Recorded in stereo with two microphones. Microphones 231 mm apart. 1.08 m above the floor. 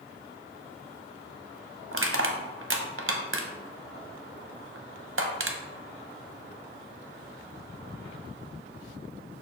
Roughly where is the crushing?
Right.